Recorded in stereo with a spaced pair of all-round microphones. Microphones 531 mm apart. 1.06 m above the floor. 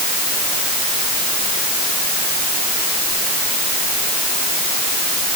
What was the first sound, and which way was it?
Only background noise.